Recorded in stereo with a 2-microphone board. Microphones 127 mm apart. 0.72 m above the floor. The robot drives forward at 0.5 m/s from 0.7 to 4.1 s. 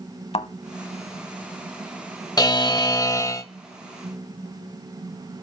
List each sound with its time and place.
0.3 s a thud: 55° left (ahead or behind), 0.8 m
2.4 s a buzzer: 30° left (ahead or behind), 0.5 m; by 3.5 s 25° left (ahead or behind), 0.6 m